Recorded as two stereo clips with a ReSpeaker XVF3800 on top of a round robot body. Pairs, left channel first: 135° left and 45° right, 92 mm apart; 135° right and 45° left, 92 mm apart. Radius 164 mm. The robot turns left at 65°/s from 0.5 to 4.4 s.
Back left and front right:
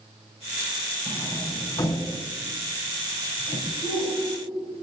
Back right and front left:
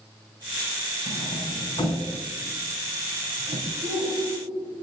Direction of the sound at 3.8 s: 90° left.